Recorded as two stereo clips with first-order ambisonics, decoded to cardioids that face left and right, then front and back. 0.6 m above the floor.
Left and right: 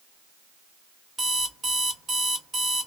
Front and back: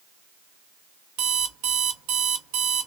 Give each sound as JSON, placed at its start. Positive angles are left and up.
{"t": 1.2, "sound": "an alarm clock", "azimuth_deg": -160, "distance_m": 0.7}